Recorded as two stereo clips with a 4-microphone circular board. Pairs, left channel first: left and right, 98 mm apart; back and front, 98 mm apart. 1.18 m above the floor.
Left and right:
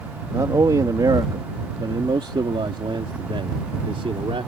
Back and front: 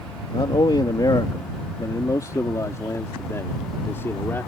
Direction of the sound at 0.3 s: 145° right.